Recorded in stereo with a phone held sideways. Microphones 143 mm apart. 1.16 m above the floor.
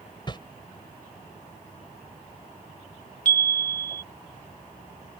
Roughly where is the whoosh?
Left.